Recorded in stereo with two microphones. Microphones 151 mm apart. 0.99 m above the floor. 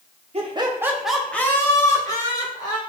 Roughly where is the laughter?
Right.